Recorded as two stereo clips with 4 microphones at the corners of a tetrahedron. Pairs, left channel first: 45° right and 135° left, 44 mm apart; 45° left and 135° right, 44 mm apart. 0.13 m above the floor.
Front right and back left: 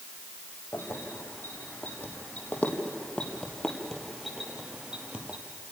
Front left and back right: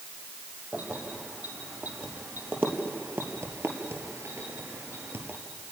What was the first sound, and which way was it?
Keys jangling, 80° right.